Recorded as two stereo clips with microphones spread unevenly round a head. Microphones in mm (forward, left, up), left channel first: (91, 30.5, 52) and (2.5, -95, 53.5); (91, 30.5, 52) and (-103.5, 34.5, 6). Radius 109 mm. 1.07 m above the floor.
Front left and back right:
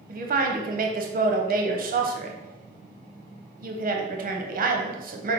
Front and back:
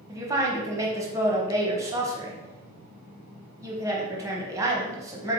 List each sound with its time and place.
0.1 s a woman speaking: 115° right, 0.8 m